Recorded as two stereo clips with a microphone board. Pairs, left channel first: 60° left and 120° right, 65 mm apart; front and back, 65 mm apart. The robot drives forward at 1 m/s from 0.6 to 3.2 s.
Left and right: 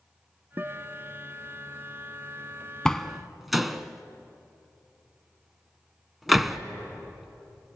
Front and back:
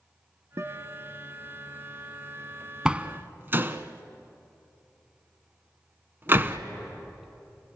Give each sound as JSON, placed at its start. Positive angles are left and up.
{"t": 0.6, "sound": "a guitar", "azimuth_deg": -165, "distance_m": 0.8}
{"t": 2.9, "sound": "a door slam", "azimuth_deg": 125, "distance_m": 0.8}